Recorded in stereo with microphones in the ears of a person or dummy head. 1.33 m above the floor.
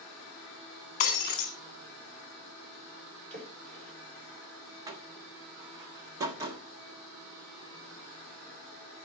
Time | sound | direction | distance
1.0 | breaking glass | 35° left (ahead or behind) | 2 m
3.3 | a splash | 40° right (ahead or behind) | 5 m
4.9 | a door slam | 25° right (ahead or behind) | 1.4 m